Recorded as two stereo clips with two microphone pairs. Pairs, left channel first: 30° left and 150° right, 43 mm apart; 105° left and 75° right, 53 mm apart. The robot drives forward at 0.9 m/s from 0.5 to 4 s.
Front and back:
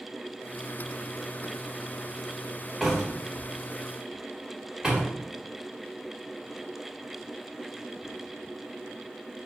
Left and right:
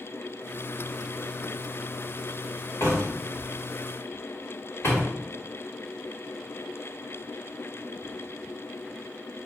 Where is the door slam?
120° left, 3.5 m; by 5.1 s 130° left, 4.5 m.